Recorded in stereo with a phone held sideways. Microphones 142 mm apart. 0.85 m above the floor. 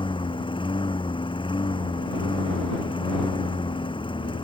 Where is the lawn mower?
35° left (ahead or behind).